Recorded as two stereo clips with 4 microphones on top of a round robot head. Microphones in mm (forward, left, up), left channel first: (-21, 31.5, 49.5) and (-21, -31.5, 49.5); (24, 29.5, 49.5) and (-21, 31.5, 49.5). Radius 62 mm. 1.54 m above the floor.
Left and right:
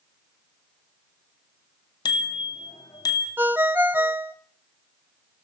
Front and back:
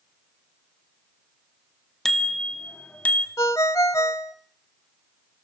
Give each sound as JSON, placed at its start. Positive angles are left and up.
{"t": 2.0, "sound": "a bicycle bell", "azimuth_deg": 80, "distance_m": 2.0}
{"t": 3.4, "sound": "a ringtone", "azimuth_deg": -25, "distance_m": 0.7}